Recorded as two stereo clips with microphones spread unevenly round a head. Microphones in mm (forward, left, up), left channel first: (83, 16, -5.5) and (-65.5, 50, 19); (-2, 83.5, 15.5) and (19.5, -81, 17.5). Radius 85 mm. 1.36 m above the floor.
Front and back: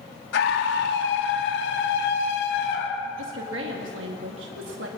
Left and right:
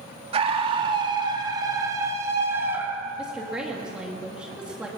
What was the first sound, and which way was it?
A scream, 25° right.